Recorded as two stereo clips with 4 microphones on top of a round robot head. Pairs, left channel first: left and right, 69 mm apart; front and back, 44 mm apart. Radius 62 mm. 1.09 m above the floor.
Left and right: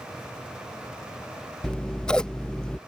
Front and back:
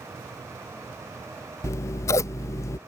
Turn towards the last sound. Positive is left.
turn(degrees=10)